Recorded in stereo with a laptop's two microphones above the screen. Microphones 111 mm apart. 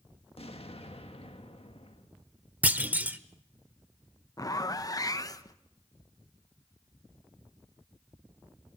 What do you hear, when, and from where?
0.4 s an explosion: 60° left (ahead or behind), 1.6 m
2.6 s a clunk: 15° right (ahead or behind), 1.0 m
4.4 s a zipper: 35° left (ahead or behind), 0.8 m